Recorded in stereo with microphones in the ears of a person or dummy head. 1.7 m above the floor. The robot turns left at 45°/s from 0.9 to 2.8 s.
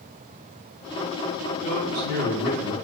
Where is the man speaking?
145° left, 4.5 m; by 2.7 s 95° left, 4.5 m.